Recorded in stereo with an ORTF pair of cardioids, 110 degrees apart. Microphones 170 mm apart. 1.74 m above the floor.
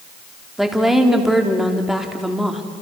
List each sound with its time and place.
0.6 s a woman speaking: straight ahead, 4 m